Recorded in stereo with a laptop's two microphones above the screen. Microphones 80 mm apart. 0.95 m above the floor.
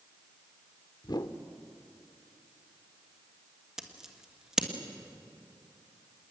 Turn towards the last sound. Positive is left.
turn(degrees=-5)  # may be behind; listen again after turning